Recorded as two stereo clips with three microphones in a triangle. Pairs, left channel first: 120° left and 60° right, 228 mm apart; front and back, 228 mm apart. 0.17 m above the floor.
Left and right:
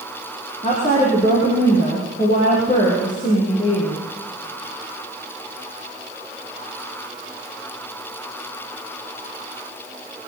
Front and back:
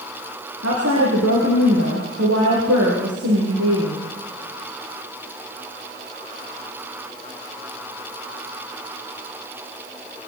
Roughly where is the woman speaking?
Behind.